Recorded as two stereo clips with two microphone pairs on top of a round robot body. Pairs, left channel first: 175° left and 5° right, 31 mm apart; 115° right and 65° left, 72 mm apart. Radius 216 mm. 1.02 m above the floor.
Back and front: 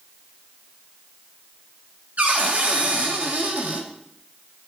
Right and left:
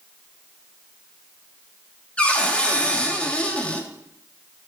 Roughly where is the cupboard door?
Ahead right.